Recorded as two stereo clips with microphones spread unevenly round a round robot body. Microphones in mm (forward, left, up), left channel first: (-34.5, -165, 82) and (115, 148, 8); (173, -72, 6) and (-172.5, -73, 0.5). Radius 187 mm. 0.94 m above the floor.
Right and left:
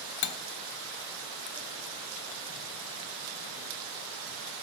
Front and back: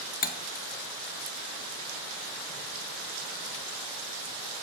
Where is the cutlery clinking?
70° right, 0.7 m.